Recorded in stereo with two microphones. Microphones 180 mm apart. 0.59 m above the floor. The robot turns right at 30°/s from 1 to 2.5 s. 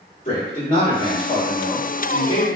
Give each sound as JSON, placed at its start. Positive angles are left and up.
{"t": 0.2, "sound": "a man speaking", "azimuth_deg": 90, "distance_m": 1.7}